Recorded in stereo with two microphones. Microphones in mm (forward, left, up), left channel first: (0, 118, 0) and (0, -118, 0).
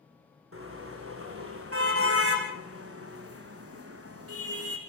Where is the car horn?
65° right (ahead or behind), 5.5 m; by 4.8 s 80° right, 4 m.